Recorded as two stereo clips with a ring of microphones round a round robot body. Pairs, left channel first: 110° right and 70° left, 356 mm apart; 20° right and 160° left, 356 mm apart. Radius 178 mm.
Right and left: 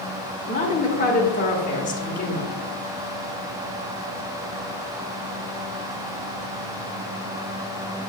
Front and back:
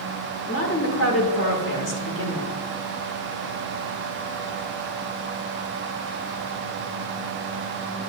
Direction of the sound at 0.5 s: 55° right.